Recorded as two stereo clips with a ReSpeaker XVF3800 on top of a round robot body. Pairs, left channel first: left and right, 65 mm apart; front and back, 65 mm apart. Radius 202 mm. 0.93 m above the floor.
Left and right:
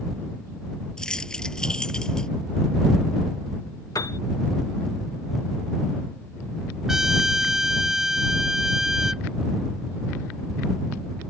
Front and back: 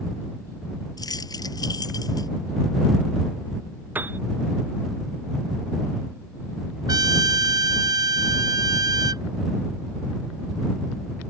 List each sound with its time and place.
1.0 s keys jangling: 10° left
4.0 s a piano: 120° left
6.9 s a trumpet: 175° right